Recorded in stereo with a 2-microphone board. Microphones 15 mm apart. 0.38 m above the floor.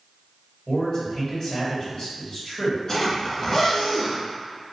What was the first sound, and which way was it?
A man speaking, 40° left (ahead or behind).